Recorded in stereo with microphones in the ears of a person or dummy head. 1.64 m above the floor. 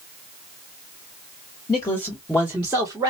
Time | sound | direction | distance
1.7 | a man speaking | 20° left (ahead or behind) | 1.1 m